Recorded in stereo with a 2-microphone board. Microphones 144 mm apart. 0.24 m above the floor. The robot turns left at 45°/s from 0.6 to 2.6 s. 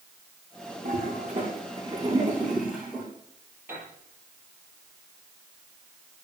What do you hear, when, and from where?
0.8 s a toilet flushing: 80° right, 8.5 m; by 3.1 s centre (ahead or behind), 8.5 m
3.7 s a piano: 15° right (ahead or behind), 8 m